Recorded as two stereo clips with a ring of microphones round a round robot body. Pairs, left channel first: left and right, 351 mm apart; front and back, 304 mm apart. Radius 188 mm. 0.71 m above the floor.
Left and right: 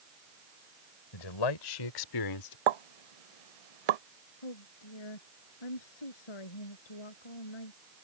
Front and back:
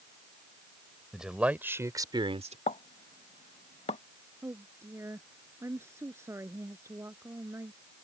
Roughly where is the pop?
Right.